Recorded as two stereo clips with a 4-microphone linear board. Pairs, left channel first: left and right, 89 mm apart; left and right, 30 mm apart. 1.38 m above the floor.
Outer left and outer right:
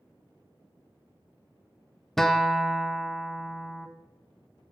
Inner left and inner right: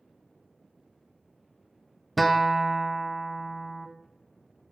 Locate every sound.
2.2 s a guitar: 5° left (ahead or behind), 0.6 m